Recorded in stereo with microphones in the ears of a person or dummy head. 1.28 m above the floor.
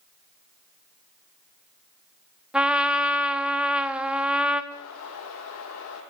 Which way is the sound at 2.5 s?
5° right (ahead or behind).